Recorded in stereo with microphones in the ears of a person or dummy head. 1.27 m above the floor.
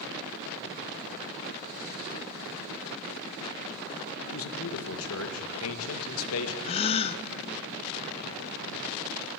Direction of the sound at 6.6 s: 30° left (ahead or behind).